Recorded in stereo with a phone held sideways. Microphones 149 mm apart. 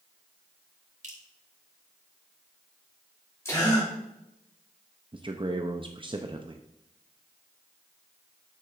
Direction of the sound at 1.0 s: 60° right (ahead or behind).